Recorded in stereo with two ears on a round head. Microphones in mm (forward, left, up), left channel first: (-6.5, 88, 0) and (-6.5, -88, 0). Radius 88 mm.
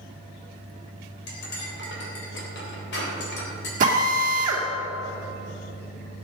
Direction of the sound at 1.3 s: 60° left (ahead or behind).